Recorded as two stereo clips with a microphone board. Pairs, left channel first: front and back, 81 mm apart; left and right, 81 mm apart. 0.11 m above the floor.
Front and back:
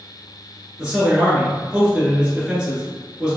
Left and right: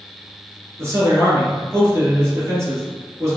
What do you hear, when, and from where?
0.8 s a man speaking: 110° right, 2.0 m